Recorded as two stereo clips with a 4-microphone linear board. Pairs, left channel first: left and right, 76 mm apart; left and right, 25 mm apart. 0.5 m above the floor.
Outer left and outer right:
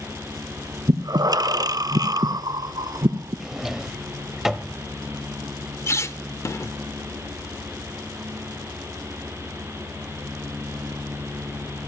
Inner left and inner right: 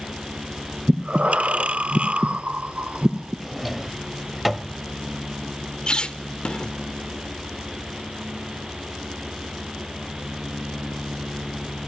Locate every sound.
0.9 s breathing: 55° right (ahead or behind), 0.5 m
3.4 s a drawer: 5° right (ahead or behind), 0.8 m
5.9 s a squeak: 40° left (ahead or behind), 0.7 m